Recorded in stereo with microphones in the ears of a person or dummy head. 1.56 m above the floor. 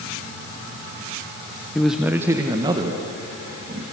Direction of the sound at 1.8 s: 5° left (ahead or behind).